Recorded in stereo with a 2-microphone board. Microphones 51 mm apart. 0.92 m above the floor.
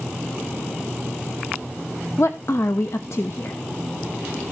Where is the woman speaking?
60° left (ahead or behind), 0.8 m.